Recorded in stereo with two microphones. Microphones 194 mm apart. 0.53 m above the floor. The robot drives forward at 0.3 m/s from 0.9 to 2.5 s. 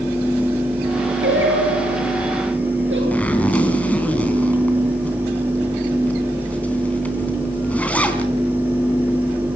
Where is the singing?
85° right, 8.5 m.